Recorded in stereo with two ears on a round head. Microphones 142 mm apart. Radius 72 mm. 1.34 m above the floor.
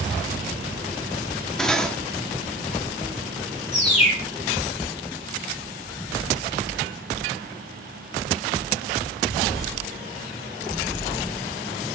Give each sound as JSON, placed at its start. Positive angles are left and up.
{"t": 1.6, "sound": "cutlery clinking", "side_deg": 5, "distance_m": 1.4}
{"t": 3.7, "sound": "a bird", "side_deg": 45, "distance_m": 4.0}